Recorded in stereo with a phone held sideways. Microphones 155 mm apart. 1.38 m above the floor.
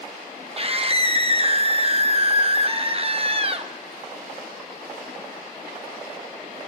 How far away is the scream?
About 1.1 m.